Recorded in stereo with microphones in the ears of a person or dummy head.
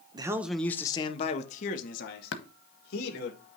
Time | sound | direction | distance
0.1 | a man speaking | 25° right (ahead or behind) | 0.6 m
2.3 | tapping | 70° left (ahead or behind) | 1.0 m